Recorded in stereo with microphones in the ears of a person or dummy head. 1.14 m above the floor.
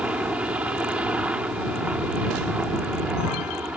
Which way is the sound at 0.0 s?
10° right (ahead or behind).